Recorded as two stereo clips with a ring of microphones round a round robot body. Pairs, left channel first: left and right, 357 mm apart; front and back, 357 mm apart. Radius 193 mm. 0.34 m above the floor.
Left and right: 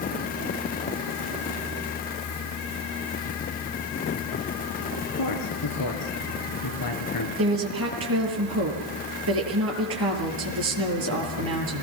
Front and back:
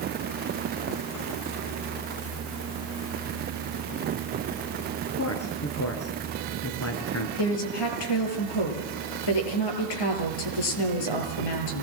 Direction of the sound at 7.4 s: 30° right.